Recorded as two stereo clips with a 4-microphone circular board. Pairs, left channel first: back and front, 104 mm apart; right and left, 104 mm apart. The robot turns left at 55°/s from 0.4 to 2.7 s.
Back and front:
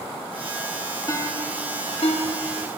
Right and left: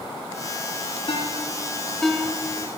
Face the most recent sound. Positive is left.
turn(degrees=150)